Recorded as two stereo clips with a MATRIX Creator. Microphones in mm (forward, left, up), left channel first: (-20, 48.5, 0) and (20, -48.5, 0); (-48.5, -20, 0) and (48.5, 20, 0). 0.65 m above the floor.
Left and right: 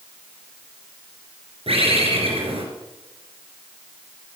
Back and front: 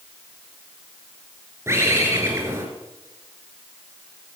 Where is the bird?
40° right, 3.5 m.